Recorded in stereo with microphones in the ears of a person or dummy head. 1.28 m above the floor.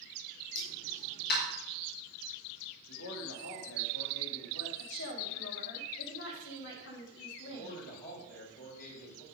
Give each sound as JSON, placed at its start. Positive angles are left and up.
{"t": 0.6, "sound": "a pop", "side_deg": 55, "distance_m": 4.5}
{"t": 2.9, "sound": "a man speaking", "side_deg": 70, "distance_m": 3.0}
{"t": 4.8, "sound": "a woman speaking", "side_deg": 65, "distance_m": 3.0}
{"t": 7.5, "sound": "a man speaking", "side_deg": 45, "distance_m": 5.5}